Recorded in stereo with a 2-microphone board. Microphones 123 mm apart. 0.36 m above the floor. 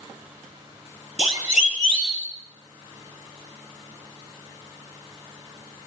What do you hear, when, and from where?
1.2 s a siren: 70° left (ahead or behind), 6 m; by 2.3 s 75° left (ahead or behind), 7 m